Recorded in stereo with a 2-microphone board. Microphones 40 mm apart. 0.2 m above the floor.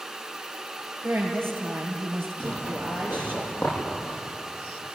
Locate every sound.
1.0 s a woman speaking: 75° right (ahead or behind), 5.5 m; by 3.4 s 55° right (ahead or behind), 5.5 m
2.4 s a zipper: 35° left (ahead or behind), 9.5 m